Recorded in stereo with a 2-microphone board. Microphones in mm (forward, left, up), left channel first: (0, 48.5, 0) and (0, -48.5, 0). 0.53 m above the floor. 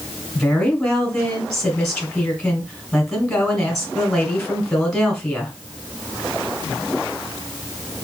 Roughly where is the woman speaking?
Centre.